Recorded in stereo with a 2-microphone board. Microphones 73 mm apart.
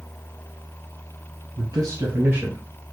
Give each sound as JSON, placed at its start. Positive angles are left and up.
{"t": 1.6, "sound": "a man speaking", "side_deg": -55, "distance_m": 2.0}